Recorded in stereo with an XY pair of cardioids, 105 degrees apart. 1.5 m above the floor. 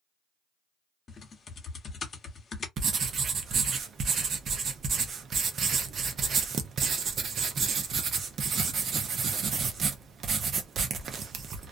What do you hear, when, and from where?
1.1 s typing on a keyboard: 40° left, 0.9 m
2.8 s writing: 50° right, 0.6 m